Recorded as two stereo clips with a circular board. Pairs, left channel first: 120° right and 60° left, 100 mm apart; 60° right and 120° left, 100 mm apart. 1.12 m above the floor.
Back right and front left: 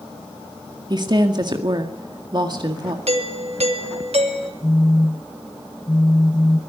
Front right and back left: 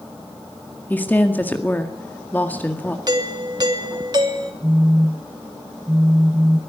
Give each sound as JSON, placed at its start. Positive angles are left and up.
{"t": 0.9, "sound": "a woman speaking", "azimuth_deg": 15, "distance_m": 1.9}
{"t": 3.1, "sound": "a doorbell", "azimuth_deg": 70, "distance_m": 3.0}
{"t": 4.6, "sound": "a phone buzzing", "azimuth_deg": -175, "distance_m": 0.6}